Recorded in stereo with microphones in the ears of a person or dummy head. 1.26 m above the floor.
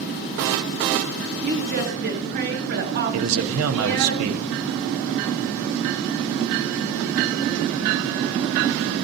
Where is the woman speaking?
50° right (ahead or behind), 2.5 m.